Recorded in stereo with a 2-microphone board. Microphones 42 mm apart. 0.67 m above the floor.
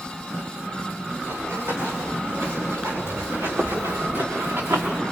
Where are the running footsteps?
80° right, 8 m; by 5.0 s 75° right (ahead or behind), 3 m.